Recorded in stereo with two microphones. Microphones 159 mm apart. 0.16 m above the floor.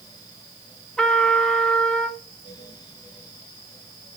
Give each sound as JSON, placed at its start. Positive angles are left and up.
{"t": 1.0, "sound": "a trumpet", "side_deg": 5, "distance_m": 0.9}